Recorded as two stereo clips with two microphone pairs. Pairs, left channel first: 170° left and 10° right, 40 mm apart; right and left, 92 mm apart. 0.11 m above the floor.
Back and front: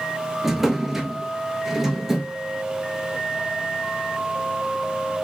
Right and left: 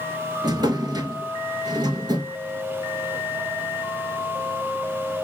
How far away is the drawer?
About 0.7 m.